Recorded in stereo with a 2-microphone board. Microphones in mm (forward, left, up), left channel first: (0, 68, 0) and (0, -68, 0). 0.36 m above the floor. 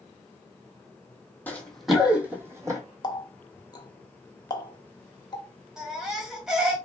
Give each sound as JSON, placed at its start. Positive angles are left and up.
{"t": 1.5, "sound": "running footsteps", "side_deg": 15, "distance_m": 0.8}
{"t": 3.0, "sound": "a running tap", "side_deg": 30, "distance_m": 0.6}
{"t": 5.8, "sound": "a baby crying", "side_deg": -5, "distance_m": 1.1}